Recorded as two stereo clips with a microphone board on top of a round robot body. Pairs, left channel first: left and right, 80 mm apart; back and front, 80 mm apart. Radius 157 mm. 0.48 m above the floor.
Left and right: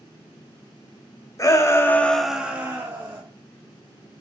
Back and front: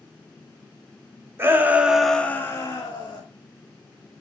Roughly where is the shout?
Ahead left.